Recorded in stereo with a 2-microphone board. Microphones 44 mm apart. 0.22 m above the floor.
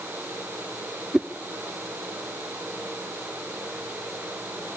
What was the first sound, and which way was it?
A whoosh, 15° right (ahead or behind).